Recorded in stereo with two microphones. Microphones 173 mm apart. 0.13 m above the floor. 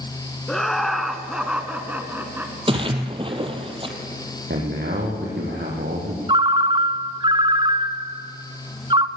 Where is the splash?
30° right (ahead or behind), 2.0 m.